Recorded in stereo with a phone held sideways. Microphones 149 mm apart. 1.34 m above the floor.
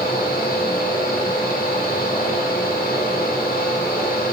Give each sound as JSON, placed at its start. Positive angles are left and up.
{"t": 0.0, "sound": "a fan", "side_deg": 65, "distance_m": 2.0}